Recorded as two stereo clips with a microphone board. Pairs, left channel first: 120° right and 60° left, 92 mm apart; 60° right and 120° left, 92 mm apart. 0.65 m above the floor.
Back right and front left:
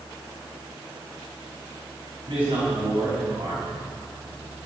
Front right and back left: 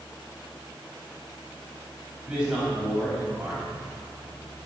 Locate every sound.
2.3 s a man speaking: 40° left, 4.5 m